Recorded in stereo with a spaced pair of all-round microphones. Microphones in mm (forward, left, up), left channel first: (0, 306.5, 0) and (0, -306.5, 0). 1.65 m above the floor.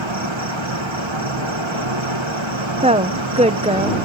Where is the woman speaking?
10° right (ahead or behind).